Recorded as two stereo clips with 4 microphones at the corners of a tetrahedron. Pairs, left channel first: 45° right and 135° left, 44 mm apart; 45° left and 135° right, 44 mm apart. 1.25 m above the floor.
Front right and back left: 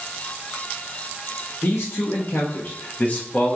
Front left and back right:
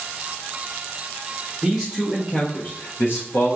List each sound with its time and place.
1.6 s a man speaking: 50° right, 0.8 m; by 3.6 s 30° left, 0.8 m